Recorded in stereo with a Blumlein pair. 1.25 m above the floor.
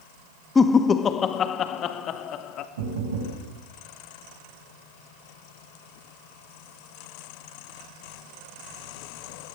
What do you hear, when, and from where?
0.6 s laughter: 15° left, 1.3 m; by 2.7 s 35° left, 2.5 m
2.8 s knocking: 60° right, 7 m